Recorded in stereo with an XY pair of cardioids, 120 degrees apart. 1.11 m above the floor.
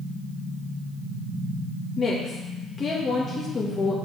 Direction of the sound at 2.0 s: 30° left.